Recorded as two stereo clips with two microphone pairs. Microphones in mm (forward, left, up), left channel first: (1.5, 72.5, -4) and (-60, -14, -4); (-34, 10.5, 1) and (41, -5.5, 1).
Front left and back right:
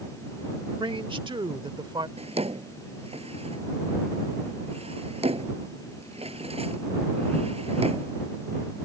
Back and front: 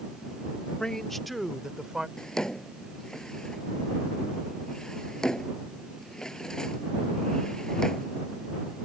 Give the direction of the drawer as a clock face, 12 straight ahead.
4 o'clock.